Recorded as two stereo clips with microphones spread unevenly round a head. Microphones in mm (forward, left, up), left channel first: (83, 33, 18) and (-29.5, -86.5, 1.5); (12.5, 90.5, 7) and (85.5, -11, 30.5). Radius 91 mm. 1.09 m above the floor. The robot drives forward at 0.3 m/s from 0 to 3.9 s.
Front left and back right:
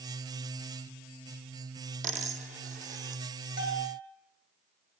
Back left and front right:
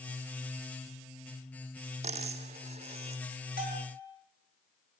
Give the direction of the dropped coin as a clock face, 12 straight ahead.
3 o'clock.